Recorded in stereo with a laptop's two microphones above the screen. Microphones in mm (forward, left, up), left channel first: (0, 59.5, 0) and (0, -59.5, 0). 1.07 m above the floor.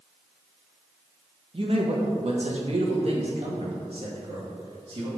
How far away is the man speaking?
About 1.2 m.